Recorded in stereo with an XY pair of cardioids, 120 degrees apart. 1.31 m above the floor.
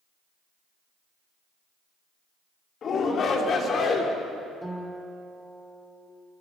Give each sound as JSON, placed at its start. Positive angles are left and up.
{"t": 2.8, "sound": "a shout", "azimuth_deg": 45, "distance_m": 3.5}
{"t": 4.6, "sound": "a guitar", "azimuth_deg": -5, "distance_m": 4.0}